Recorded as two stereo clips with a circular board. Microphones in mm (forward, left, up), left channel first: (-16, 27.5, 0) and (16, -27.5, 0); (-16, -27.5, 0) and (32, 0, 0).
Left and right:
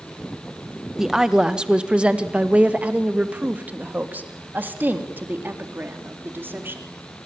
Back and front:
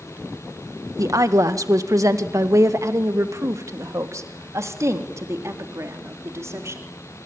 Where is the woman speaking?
25° left, 1.7 m; by 6.8 s 5° right, 4.5 m.